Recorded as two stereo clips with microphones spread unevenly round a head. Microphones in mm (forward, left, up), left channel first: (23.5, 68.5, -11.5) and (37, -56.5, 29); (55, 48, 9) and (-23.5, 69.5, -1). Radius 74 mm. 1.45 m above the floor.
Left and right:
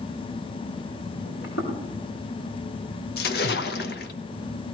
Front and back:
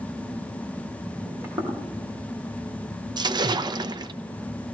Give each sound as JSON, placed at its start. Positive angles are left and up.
{"t": 1.2, "sound": "footsteps", "azimuth_deg": 100, "distance_m": 4.5}
{"t": 3.2, "sound": "a splash", "azimuth_deg": 130, "distance_m": 1.0}